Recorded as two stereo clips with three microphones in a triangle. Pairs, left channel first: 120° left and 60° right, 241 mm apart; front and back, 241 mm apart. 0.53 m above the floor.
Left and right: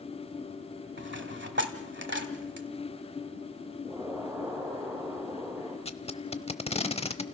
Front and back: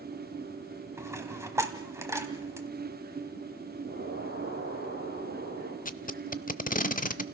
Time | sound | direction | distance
1.0 | a dropped coin | 100° right | 1.4 m
3.9 | an explosion | 160° right | 8.5 m
5.8 | tape being pulled | 60° left | 0.6 m